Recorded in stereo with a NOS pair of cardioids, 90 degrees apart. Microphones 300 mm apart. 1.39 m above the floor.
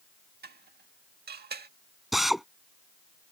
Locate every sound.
0.4 s dishes clattering: 35° right
2.1 s a drill: straight ahead